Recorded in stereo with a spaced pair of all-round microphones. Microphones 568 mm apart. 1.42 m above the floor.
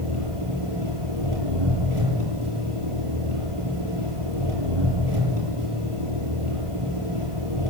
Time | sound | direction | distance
0.0 | an engine running | 60° right (ahead or behind) | 9.5 m